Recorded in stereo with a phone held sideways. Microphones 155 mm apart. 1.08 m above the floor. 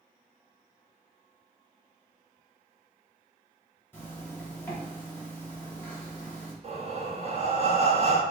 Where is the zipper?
15° left (ahead or behind), 2.5 m.